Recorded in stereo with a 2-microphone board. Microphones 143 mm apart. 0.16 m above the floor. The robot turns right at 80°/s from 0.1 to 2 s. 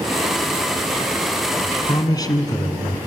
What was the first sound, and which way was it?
A man speaking, 35° left (ahead or behind).